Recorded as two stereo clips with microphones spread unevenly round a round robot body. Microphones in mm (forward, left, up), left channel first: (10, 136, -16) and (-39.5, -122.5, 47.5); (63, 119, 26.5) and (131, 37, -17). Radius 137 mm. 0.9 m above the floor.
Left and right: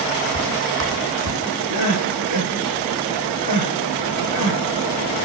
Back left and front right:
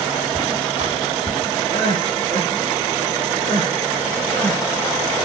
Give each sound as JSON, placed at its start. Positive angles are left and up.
{"t": 0.3, "sound": "footsteps", "azimuth_deg": -130, "distance_m": 2.5}
{"t": 1.7, "sound": "crying", "azimuth_deg": -110, "distance_m": 4.5}